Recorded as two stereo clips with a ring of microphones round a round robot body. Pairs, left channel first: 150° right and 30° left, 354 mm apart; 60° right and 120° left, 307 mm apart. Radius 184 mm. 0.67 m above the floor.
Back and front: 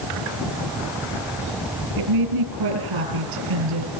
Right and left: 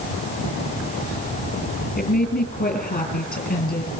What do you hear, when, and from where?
2.0 s a woman speaking: 5° left, 8 m